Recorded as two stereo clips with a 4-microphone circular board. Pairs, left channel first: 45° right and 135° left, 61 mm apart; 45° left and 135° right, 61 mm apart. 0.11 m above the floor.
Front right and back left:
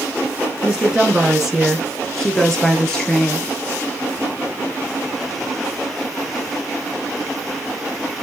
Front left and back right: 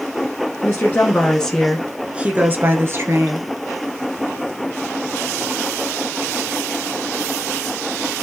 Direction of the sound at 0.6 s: 65° left.